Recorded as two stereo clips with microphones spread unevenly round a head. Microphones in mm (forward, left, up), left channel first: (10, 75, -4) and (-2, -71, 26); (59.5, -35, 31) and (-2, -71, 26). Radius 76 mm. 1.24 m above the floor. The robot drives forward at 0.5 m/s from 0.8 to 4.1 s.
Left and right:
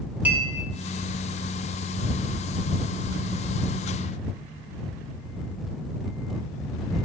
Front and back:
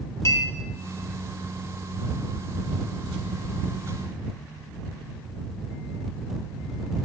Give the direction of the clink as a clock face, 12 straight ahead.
1 o'clock.